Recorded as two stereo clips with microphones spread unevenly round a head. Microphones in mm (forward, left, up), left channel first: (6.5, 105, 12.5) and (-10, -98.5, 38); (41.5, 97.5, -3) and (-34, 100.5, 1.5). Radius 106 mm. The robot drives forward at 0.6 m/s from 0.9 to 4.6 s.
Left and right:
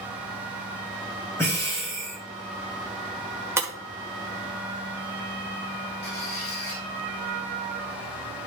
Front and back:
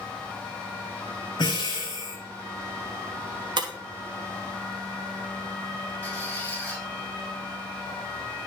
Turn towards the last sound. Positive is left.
turn(degrees=65)